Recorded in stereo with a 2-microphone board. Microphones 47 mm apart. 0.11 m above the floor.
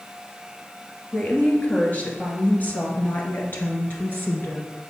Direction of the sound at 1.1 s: 30° left (ahead or behind).